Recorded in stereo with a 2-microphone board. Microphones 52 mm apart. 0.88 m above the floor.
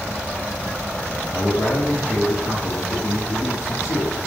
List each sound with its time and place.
1.3 s a man speaking: 70° left (ahead or behind), 2.5 m